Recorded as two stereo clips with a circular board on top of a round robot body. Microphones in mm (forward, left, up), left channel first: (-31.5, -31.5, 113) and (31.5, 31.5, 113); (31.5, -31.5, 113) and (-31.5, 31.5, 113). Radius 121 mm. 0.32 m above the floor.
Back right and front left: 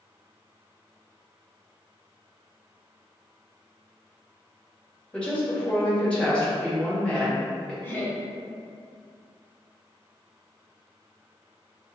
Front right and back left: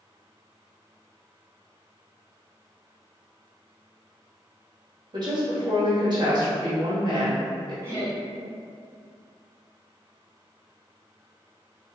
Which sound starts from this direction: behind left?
A woman speaking, at 5.1 s.